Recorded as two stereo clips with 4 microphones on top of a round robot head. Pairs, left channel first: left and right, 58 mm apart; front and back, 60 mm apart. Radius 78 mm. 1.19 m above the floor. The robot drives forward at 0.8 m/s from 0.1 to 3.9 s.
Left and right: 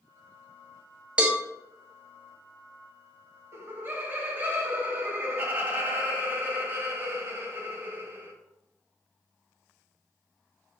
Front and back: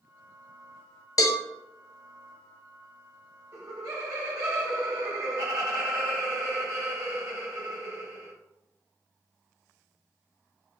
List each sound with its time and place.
1.2 s a cowbell: 20° right, 0.6 m; by 1.4 s 30° right, 0.5 m
3.5 s laughter: 135° right, 1.1 m; by 8.3 s 145° right, 1.3 m